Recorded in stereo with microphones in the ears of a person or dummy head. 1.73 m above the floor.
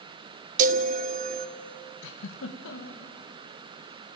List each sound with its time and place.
0.6 s a chime: 40° right (ahead or behind), 0.6 m
2.0 s a giggle: 70° left (ahead or behind), 1.9 m